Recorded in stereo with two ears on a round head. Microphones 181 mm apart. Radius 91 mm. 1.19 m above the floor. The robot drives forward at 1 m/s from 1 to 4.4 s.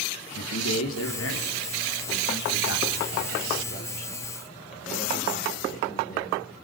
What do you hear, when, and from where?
0.3 s a man speaking: 80° left, 3.5 m; by 6.3 s 40° left (ahead or behind), 5 m